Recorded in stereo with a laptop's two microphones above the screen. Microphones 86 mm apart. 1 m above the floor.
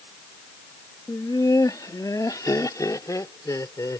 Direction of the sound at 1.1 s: 45° left (ahead or behind).